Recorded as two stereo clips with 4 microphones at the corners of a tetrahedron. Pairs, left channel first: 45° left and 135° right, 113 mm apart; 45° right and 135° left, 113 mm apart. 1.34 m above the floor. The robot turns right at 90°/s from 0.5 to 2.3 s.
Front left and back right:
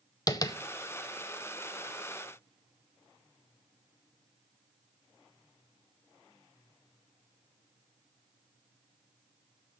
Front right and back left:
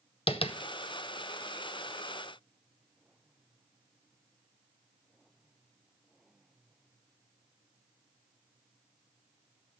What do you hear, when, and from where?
0.3 s tapping: 10° right, 0.6 m; by 0.6 s 5° right, 0.6 m